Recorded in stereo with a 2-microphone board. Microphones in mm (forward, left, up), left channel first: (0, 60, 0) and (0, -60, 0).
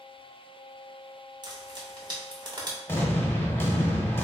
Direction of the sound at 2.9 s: 20° left (ahead or behind).